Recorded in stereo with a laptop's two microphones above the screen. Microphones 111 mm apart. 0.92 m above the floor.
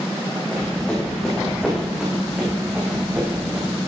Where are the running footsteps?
10° left (ahead or behind), 4.5 m; by 3.8 s 25° right (ahead or behind), 5 m.